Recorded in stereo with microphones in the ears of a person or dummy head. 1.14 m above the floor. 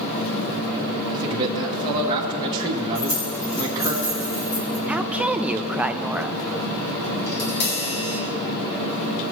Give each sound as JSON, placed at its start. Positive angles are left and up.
{"t": 1.1, "sound": "a man speaking", "side_deg": -25, "distance_m": 1.0}
{"t": 3.0, "sound": "keys jangling", "side_deg": 40, "distance_m": 2.5}
{"t": 4.9, "sound": "a woman speaking", "side_deg": 0, "distance_m": 0.5}
{"t": 7.3, "sound": "tapping", "side_deg": 55, "distance_m": 1.6}